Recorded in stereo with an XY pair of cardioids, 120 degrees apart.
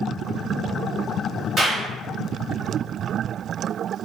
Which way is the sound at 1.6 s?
35° right.